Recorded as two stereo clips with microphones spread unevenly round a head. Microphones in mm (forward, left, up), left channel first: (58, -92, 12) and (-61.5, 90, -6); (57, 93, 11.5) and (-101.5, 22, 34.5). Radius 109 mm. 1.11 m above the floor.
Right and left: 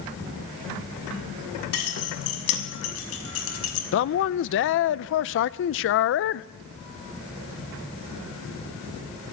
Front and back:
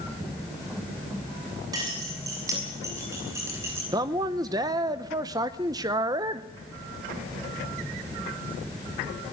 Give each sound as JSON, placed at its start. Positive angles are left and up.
{"t": 1.7, "sound": "keys jangling", "azimuth_deg": -85, "distance_m": 6.5}
{"t": 3.9, "sound": "a man speaking", "azimuth_deg": -85, "distance_m": 0.6}